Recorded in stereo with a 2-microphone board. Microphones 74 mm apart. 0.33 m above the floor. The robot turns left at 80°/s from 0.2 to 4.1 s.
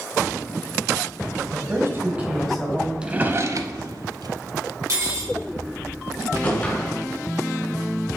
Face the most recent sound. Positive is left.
turn(degrees=20)  # may be behind; listen again after turning